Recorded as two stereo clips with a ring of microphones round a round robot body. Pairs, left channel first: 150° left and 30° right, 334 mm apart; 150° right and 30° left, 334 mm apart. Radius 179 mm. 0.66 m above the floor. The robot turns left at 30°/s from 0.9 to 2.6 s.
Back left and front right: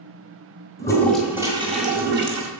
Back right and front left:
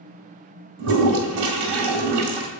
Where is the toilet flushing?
70° left, 2.0 m; by 2.5 s 20° left, 2.0 m.